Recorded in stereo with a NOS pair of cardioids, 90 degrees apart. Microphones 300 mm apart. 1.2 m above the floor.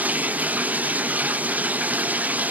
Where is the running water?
5° right, 0.7 m.